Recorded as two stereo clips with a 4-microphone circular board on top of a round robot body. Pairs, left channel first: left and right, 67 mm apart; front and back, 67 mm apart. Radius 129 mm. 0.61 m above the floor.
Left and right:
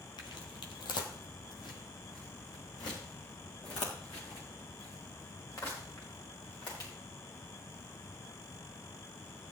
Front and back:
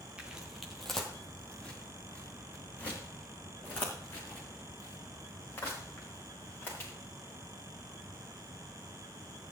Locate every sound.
0.2 s footsteps: 105° left, 1.1 m; by 6.9 s 60° left, 6 m